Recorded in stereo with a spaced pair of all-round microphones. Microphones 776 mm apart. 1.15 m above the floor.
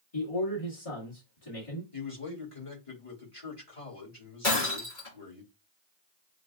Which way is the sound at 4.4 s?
75° left (ahead or behind).